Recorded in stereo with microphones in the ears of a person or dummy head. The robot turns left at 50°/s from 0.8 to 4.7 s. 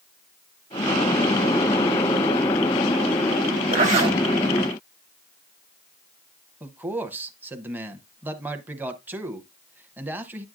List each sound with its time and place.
3.7 s a zipper: 45° right (ahead or behind), 1.3 m; by 4.2 s 20° right (ahead or behind), 1.3 m
6.6 s a man speaking: 15° right (ahead or behind), 0.7 m